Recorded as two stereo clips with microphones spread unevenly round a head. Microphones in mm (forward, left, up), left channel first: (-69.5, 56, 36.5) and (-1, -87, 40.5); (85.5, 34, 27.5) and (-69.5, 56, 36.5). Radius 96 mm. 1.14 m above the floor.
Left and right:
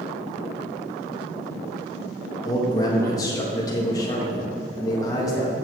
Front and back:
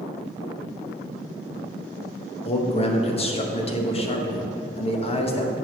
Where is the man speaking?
45° left, 1.2 m.